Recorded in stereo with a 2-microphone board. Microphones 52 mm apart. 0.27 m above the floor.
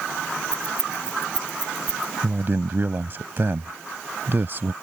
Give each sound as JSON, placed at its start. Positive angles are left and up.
{"t": 0.5, "sound": "keys jangling", "side_deg": -35}
{"t": 2.2, "sound": "a man speaking", "side_deg": -45}